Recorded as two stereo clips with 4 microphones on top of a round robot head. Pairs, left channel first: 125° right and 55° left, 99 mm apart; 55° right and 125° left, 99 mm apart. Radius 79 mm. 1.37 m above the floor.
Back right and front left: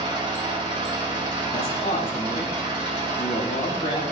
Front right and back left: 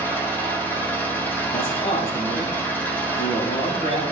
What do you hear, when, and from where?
0.0 s an engine running: 15° left, 2.5 m
1.5 s a man speaking: 80° right, 4.5 m